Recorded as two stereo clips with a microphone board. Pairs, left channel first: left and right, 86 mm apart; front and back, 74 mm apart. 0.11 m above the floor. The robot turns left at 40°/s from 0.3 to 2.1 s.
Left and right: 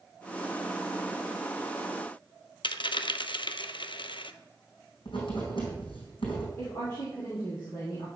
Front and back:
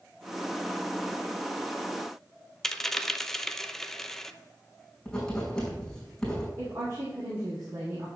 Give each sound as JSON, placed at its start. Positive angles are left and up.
{"t": 2.6, "sound": "a dropped coin", "azimuth_deg": 85, "distance_m": 0.5}
{"t": 5.0, "sound": "writing", "azimuth_deg": 80, "distance_m": 5.0}
{"t": 6.6, "sound": "a woman speaking", "azimuth_deg": 135, "distance_m": 5.0}